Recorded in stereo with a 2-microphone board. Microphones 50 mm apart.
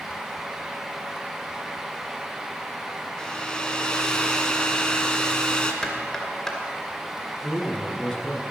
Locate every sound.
3.2 s a hair dryer: 15° left (ahead or behind), 1.4 m
5.8 s knocking: 10° left (ahead or behind), 2.5 m
7.4 s a man speaking: 15° left (ahead or behind), 2 m